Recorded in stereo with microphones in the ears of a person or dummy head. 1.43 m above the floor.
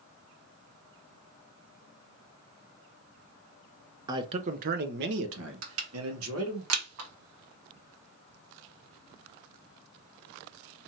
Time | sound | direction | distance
4.1 | a man speaking | 20° right (ahead or behind) | 0.6 m
5.6 | crushing | 80° right | 1.4 m